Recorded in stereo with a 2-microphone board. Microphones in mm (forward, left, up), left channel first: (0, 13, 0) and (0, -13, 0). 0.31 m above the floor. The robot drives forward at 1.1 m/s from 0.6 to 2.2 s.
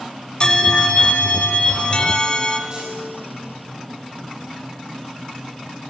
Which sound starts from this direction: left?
A bell, at 0.4 s.